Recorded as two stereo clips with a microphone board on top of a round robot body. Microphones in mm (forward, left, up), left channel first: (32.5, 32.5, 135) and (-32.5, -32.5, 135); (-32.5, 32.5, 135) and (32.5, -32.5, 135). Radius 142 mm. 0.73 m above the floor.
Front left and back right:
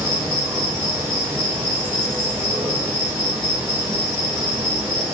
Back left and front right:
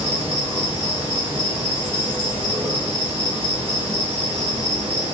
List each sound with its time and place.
0.0 s an insect: 70° right, 4.5 m